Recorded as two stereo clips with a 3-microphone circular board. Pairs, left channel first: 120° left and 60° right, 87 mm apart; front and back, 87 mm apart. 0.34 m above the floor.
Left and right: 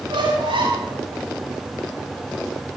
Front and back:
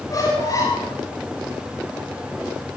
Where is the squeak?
50° right, 8 m.